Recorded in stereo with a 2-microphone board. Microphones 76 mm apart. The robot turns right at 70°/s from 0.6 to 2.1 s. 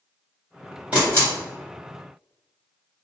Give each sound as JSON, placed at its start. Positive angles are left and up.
{"t": 0.9, "sound": "a camera shutter", "side_deg": -15, "distance_m": 1.7}